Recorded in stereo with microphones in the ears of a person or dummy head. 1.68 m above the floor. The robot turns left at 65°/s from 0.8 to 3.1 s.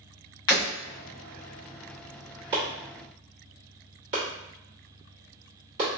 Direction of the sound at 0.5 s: 25° left (ahead or behind).